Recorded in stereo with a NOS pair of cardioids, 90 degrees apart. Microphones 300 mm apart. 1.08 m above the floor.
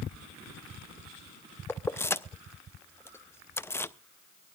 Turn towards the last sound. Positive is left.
turn(degrees=10)